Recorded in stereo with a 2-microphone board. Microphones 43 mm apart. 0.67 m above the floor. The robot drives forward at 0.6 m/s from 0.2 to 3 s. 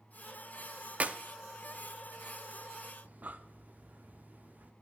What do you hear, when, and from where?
1.0 s a clap: 35° right (ahead or behind), 0.5 m; by 1.2 s 30° right (ahead or behind), 0.6 m
3.0 s breathing: 45° right (ahead or behind), 0.5 m